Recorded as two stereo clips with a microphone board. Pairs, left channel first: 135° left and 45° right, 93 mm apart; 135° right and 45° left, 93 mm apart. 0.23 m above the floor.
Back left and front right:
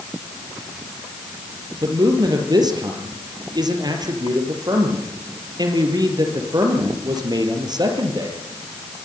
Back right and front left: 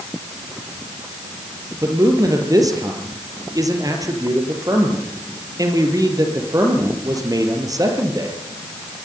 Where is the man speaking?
5° right, 5 m.